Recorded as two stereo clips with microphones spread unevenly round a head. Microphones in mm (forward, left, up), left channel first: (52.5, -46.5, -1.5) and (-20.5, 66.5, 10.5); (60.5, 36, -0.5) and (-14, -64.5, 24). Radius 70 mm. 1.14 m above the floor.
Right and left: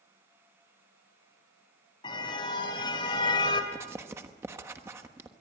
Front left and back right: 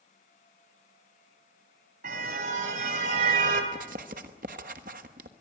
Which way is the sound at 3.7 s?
165° right.